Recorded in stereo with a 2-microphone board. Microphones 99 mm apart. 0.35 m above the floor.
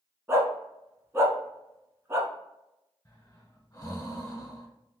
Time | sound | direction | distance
0.3 | a dog barking | 25° right (ahead or behind) | 0.8 m
3.0 | breathing | 35° left (ahead or behind) | 1.4 m